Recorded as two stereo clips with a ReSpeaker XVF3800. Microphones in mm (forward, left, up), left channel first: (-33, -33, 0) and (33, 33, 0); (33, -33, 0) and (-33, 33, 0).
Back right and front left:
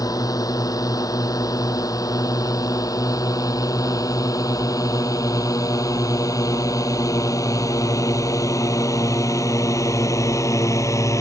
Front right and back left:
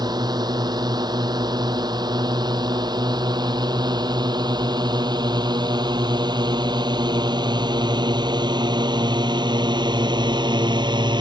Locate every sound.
0.0 s a drone: 175° left; by 11.2 s 170° left